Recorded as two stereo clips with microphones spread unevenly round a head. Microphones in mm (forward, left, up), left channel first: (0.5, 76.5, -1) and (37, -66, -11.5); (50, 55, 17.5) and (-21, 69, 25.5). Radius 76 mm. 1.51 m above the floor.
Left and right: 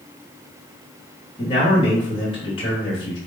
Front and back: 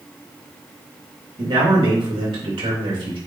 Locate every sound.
1.4 s a man speaking: 165° left, 3 m